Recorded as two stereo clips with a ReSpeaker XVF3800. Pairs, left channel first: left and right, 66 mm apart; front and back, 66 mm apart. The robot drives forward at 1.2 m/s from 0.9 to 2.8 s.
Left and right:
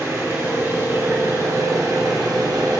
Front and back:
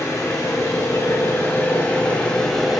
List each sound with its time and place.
0.0 s an engine running: 45° right, 3 m; by 2.8 s 90° right, 2 m